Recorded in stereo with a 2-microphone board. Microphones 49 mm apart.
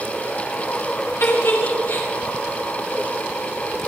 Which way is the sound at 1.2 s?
60° left (ahead or behind).